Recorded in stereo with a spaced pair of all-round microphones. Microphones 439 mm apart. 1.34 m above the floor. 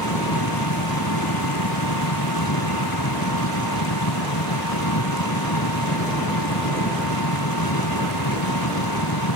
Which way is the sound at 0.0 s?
55° left (ahead or behind).